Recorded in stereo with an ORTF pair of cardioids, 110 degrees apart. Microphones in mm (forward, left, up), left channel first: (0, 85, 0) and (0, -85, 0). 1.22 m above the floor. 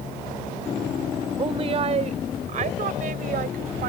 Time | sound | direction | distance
1.4 | a woman speaking | 30° right | ?